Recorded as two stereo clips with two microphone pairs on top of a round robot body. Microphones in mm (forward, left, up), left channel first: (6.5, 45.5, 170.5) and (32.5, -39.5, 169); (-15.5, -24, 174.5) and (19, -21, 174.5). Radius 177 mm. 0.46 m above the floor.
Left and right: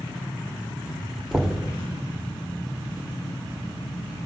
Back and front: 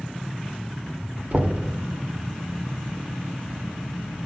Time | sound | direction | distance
1.3 | knocking | 10° left | 1.6 m